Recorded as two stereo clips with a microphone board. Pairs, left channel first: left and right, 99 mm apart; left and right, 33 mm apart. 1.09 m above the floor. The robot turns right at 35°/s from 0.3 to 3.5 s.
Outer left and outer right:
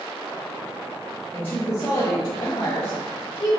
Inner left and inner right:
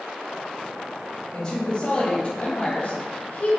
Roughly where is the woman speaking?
Ahead.